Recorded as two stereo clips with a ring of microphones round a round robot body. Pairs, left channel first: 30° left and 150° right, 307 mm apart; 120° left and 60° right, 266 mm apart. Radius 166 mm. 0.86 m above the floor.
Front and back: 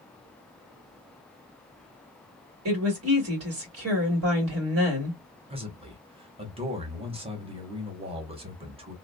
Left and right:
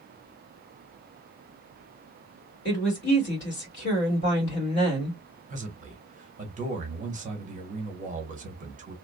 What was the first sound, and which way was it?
A woman speaking, 170° left.